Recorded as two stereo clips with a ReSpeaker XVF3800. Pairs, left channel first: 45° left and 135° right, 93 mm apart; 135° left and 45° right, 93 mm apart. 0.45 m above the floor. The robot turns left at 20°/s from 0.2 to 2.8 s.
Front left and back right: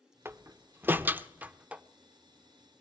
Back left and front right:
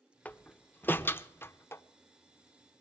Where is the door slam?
165° right, 0.5 m; by 1.8 s 160° left, 0.5 m.